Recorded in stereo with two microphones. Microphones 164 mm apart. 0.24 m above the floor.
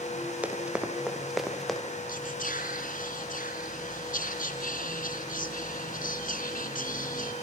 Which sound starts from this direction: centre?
Running footsteps, at 0.4 s.